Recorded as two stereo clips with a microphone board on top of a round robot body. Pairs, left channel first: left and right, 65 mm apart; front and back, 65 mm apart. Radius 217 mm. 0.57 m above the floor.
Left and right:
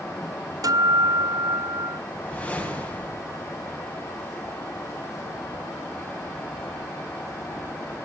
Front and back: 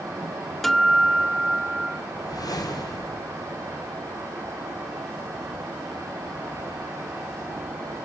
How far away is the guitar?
About 1.3 m.